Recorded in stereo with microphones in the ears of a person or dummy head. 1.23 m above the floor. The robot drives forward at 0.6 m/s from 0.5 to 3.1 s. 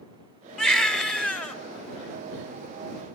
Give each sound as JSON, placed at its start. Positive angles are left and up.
{"t": 0.6, "sound": "a baby crying", "side_deg": 10, "distance_m": 2.5}